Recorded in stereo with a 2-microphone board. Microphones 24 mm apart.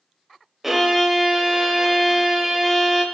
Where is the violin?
10° right (ahead or behind), 0.8 m.